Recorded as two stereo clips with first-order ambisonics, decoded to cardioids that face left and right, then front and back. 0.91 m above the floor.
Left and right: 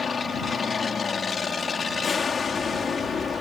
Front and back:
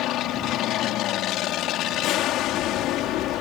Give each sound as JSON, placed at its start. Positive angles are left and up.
{"t": 0.0, "sound": "an aircraft", "azimuth_deg": 25}